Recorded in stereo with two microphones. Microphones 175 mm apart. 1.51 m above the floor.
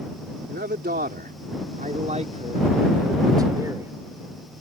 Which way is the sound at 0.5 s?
75° right (ahead or behind).